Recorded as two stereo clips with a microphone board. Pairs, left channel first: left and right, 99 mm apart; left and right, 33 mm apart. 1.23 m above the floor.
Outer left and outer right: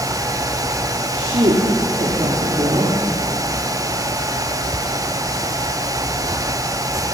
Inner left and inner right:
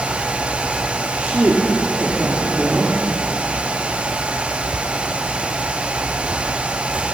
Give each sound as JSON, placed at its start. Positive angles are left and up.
{"t": 1.1, "sound": "a woman speaking", "side_deg": -85, "distance_m": 3.5}